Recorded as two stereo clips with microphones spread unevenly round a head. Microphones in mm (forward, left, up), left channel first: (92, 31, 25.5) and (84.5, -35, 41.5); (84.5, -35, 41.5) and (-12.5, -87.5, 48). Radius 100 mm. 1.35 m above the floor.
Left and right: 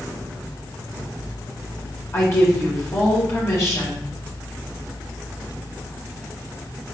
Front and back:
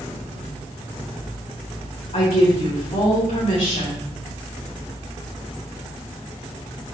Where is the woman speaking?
45° left, 1.7 m.